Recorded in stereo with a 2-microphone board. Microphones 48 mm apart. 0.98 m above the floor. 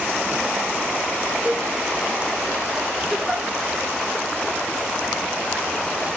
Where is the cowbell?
25° right (ahead or behind), 0.9 m.